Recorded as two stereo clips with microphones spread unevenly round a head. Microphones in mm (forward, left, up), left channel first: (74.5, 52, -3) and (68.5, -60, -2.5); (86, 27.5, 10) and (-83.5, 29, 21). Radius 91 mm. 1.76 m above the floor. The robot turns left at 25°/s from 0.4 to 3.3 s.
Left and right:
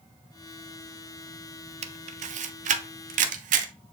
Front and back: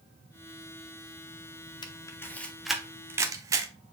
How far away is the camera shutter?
About 0.7 m.